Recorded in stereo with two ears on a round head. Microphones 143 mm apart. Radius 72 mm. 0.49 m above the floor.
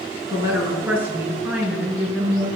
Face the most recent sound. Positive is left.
turn(degrees=0)  # may be behind; listen again after turning